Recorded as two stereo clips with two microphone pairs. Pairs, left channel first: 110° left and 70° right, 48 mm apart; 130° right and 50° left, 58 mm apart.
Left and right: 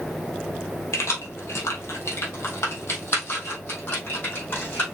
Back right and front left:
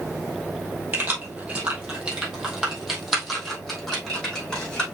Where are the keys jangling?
100° left, 2 m; by 4.8 s 150° left, 3.5 m.